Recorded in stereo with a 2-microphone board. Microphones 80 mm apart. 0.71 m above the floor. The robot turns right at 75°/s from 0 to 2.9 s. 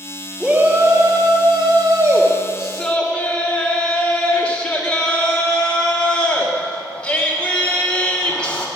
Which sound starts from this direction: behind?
A shout, at 0.4 s.